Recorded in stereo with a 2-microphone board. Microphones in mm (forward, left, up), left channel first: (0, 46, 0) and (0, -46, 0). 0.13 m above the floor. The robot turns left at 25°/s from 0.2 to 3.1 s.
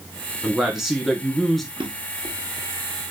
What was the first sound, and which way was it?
A man speaking, 10° right (ahead or behind).